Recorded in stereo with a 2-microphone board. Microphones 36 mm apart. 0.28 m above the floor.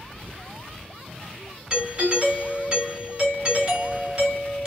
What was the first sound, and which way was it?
A doorbell, 20° right (ahead or behind).